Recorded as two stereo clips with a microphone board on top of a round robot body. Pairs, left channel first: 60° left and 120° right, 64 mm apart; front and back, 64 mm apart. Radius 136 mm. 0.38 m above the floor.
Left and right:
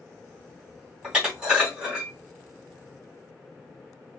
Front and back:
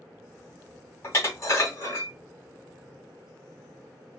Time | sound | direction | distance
1.0 | dishes clattering | 45° right | 2.5 m